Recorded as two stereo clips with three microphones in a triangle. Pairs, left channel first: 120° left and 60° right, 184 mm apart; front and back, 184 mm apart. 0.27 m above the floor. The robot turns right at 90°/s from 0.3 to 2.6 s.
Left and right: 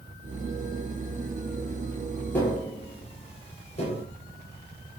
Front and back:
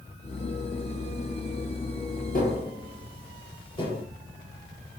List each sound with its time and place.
2.3 s tapping: 40° left, 5 m; by 4.0 s 60° left, 5 m